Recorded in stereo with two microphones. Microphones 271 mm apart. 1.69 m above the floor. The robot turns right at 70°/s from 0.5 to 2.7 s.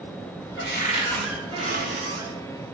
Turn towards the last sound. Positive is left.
turn(degrees=-80)